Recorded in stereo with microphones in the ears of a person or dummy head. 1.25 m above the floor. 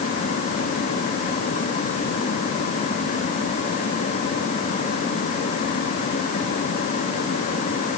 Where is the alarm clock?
No alarm clock in this recording.